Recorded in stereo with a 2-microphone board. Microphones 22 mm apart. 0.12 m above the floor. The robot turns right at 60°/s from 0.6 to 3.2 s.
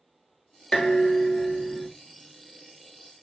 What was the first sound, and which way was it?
Dishes clattering, 80° left.